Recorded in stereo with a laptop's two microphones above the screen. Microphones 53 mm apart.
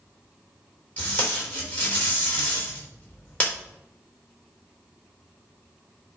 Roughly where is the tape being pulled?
Left.